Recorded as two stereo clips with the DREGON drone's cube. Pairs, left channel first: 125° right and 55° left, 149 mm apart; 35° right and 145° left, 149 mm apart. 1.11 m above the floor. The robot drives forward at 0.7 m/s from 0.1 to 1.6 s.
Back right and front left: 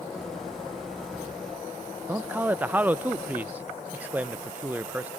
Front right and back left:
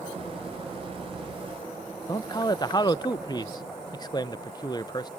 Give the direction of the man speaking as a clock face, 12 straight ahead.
12 o'clock.